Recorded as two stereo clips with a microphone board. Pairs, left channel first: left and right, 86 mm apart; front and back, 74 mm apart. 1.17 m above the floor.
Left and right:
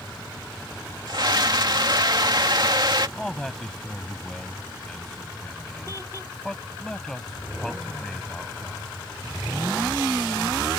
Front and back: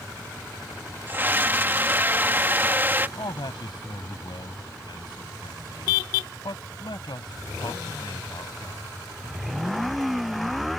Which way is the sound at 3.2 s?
5° left.